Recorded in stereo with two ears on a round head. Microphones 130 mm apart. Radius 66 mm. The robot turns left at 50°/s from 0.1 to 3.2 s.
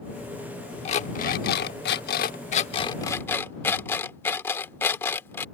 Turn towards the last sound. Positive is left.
turn(degrees=15)  # may be behind; listen again after turning